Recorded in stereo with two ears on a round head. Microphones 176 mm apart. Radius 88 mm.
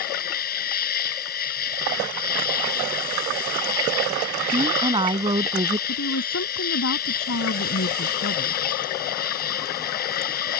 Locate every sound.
0.0 s an insect: 45° left (ahead or behind)
4.5 s a woman speaking: 25° right (ahead or behind)
5.9 s a woman speaking: 70° left (ahead or behind)